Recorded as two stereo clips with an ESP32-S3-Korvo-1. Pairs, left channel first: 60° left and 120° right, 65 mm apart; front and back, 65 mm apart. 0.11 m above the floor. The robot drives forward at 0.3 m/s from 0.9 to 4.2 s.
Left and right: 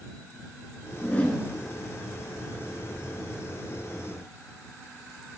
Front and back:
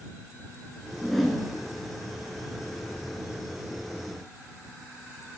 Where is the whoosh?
80° left, 1.3 m; by 1.4 s 95° left, 1.3 m.